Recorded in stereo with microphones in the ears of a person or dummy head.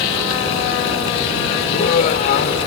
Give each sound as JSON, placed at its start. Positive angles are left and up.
{"t": 1.7, "sound": "laughter", "side_deg": 50}